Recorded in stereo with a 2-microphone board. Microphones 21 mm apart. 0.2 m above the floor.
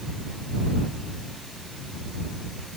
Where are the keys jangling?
I don't hear keys jangling.